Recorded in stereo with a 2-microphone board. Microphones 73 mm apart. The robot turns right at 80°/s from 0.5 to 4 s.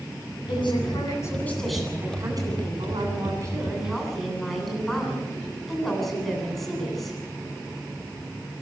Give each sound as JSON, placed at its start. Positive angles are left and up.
{"t": 0.5, "sound": "a woman speaking", "azimuth_deg": 85, "distance_m": 9.0}